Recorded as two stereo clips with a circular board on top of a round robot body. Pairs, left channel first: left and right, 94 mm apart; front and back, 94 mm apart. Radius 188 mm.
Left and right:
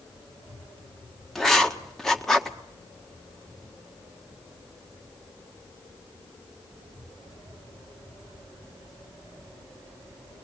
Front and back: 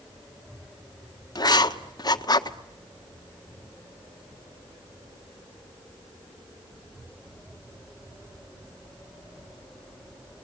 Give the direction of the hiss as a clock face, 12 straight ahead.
I don't hear a hiss.